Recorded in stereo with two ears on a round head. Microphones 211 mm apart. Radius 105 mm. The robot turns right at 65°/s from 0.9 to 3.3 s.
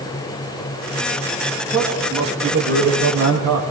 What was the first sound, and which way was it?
A man speaking, 165° left.